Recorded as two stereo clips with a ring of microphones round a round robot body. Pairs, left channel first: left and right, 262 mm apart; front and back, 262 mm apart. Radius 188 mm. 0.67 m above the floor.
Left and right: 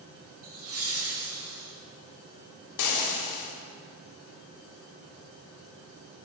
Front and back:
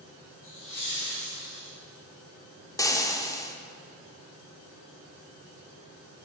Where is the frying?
80° left, 0.8 m.